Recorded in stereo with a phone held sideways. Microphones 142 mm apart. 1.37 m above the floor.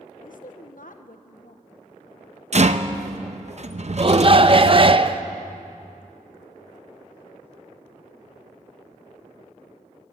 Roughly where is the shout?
Right.